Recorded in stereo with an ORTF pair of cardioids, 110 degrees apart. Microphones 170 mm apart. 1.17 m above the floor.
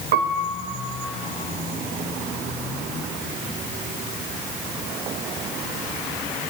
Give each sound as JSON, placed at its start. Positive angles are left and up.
{"t": 0.1, "sound": "a piano", "azimuth_deg": -65, "distance_m": 1.0}